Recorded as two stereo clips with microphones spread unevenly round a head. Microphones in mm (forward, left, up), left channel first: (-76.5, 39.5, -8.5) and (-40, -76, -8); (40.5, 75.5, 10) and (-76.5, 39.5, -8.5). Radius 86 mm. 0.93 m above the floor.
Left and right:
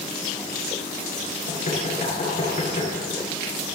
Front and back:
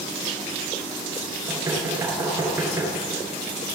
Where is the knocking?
130° left, 8.5 m.